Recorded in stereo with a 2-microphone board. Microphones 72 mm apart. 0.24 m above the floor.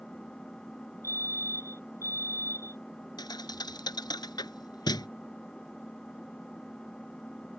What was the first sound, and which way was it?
An engine running, 10° left (ahead or behind).